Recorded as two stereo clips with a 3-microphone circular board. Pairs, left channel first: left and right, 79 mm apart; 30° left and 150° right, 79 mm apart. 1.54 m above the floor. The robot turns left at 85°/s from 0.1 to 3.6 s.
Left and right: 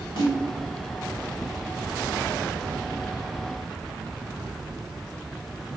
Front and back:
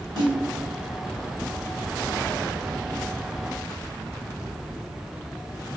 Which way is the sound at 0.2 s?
65° left.